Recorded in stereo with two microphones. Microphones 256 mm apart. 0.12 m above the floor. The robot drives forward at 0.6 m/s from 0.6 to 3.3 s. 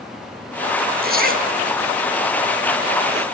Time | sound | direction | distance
1.0 | a zipper | 40° right (ahead or behind) | 1.9 m